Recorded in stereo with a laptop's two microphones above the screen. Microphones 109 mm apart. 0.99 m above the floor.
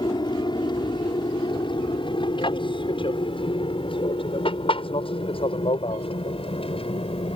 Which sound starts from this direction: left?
An aircraft, at 0.0 s.